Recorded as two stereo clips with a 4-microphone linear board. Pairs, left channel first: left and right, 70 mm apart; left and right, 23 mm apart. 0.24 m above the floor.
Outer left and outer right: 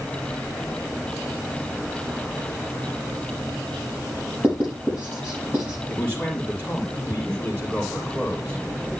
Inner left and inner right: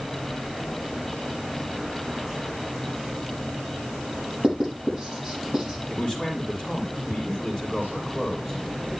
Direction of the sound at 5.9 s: 25° left (ahead or behind).